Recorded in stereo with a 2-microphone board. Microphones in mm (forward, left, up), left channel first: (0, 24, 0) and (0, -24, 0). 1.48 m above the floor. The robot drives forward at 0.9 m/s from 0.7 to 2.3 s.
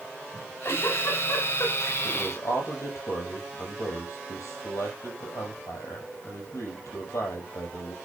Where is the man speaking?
80° left, 6.5 m.